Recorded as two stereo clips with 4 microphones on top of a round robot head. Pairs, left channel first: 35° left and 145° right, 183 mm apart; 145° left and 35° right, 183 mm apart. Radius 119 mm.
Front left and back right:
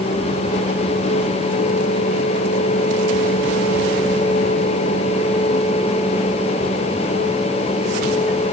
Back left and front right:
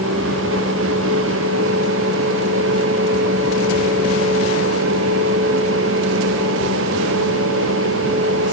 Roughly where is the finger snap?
I don't hear a finger snap.